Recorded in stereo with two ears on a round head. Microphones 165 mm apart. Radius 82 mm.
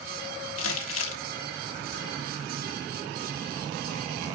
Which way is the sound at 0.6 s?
80° left.